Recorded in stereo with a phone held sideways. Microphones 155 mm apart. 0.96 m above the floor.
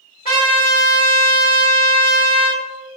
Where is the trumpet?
75° left (ahead or behind), 1.7 m.